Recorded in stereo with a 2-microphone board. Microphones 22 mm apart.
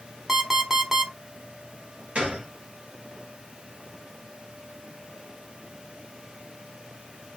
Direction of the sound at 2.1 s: 65° right (ahead or behind).